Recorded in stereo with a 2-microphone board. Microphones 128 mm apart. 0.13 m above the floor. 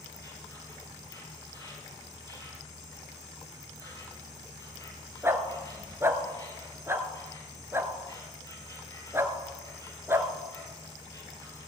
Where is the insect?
25° left (ahead or behind), 2.5 m.